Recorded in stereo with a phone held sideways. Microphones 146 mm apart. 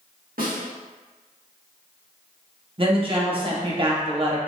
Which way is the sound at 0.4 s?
75° right (ahead or behind).